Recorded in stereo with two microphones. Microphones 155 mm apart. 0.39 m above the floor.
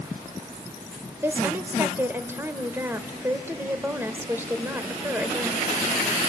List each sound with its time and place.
1.2 s a woman speaking: 15° right (ahead or behind), 1.4 m